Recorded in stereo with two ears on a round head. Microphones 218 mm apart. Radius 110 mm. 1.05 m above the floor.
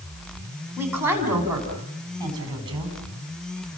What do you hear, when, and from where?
0.8 s a woman speaking: 10° right (ahead or behind), 6.5 m; by 3.0 s 20° right (ahead or behind), 7 m